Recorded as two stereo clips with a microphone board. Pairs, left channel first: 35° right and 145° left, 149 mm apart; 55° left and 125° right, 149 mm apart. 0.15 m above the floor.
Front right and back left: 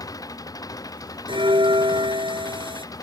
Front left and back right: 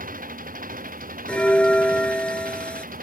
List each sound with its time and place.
0.0 s an engine running: 100° right
1.3 s a bell: 135° left